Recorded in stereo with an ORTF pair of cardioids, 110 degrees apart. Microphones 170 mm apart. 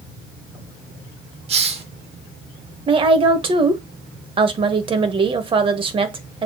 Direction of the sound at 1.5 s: 40° right.